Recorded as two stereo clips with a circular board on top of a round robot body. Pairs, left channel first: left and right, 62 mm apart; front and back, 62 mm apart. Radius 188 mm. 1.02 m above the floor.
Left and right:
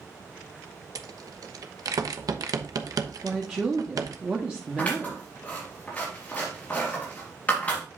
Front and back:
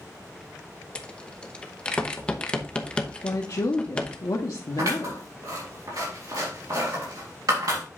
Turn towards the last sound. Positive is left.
turn(degrees=155)